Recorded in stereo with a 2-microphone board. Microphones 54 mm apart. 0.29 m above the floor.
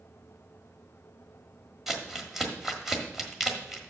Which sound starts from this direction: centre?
Crumpling, at 1.9 s.